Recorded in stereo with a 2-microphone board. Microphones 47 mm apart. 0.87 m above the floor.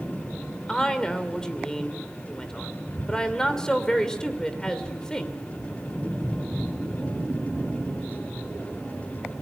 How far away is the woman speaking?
About 2.5 m.